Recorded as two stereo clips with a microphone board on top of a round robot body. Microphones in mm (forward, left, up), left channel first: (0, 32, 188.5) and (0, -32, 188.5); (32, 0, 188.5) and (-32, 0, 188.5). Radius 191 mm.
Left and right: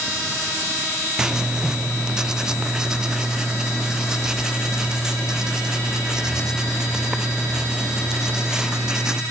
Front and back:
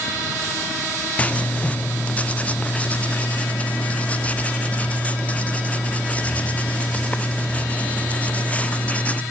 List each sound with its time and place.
1.2 s writing: 25° right, 1.5 m